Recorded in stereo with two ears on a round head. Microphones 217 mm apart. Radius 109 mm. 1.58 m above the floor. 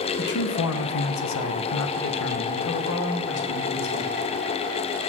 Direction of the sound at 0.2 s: 40° left (ahead or behind).